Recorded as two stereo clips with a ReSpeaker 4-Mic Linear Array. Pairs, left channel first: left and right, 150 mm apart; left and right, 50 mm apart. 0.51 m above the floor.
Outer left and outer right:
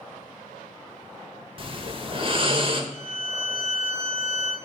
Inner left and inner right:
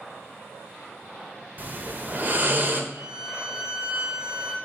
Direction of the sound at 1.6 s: 35° right (ahead or behind).